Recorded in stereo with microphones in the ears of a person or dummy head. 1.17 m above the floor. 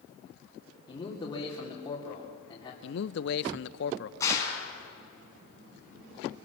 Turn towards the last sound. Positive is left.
turn(degrees=20)  # may be behind; listen again after turning